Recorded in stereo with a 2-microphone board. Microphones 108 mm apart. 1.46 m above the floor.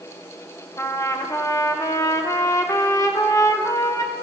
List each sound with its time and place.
0.8 s a trumpet: 30° left (ahead or behind), 0.7 m